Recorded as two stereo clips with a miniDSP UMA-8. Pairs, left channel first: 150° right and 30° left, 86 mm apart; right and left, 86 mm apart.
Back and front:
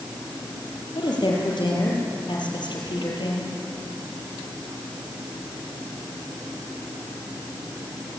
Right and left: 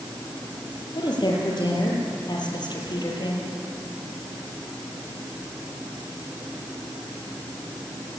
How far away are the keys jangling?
I don't hear keys jangling.